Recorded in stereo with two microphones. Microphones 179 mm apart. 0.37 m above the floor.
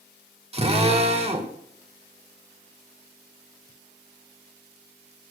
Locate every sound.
0.5 s a drill: 35° right (ahead or behind), 1.6 m